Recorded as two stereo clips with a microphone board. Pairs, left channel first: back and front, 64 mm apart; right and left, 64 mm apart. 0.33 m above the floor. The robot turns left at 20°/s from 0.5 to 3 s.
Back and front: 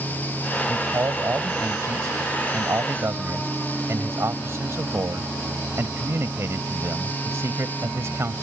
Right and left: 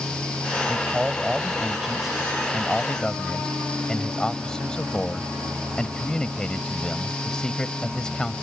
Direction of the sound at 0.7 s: 30° left.